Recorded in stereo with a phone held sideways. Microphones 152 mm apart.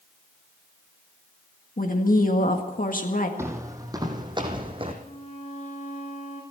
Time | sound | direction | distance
1.8 | a woman speaking | 65° left (ahead or behind) | 1.7 m
3.4 | footsteps | 15° right (ahead or behind) | 2.0 m
5.0 | a violin | 50° left (ahead or behind) | 4.5 m